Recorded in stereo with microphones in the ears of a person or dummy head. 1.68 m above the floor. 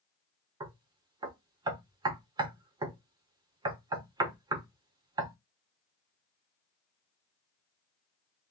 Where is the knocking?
20° right (ahead or behind), 0.7 m.